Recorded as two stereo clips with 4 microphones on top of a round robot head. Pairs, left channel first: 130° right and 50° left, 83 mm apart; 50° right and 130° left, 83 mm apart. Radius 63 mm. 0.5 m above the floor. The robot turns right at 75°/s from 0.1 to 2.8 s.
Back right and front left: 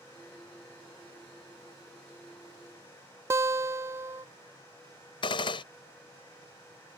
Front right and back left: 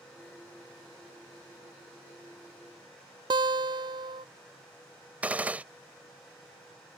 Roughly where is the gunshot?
Behind right.